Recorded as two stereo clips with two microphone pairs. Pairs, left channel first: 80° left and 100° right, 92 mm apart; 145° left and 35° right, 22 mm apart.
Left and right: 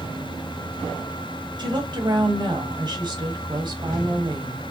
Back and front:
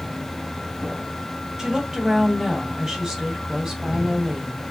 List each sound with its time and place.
1.6 s a woman speaking: 85° right, 1.8 m